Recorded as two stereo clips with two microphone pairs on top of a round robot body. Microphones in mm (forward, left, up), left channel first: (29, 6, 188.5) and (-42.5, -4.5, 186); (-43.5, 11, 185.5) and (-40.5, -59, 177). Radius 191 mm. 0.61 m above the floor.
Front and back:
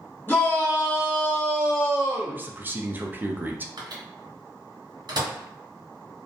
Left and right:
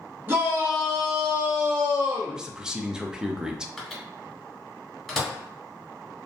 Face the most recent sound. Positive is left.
turn(degrees=-175)